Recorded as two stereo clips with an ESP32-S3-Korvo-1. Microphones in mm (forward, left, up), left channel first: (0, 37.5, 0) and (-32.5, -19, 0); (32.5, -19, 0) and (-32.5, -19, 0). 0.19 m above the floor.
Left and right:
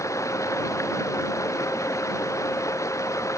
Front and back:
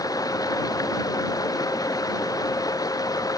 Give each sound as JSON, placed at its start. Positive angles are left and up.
{"t": 0.0, "sound": "running water", "azimuth_deg": 20}